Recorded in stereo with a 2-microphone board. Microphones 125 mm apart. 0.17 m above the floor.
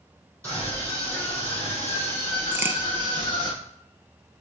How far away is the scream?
About 4 m.